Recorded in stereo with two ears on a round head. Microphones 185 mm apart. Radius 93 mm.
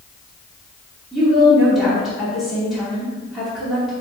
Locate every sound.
1.1 s a woman speaking: centre (ahead or behind), 2.5 m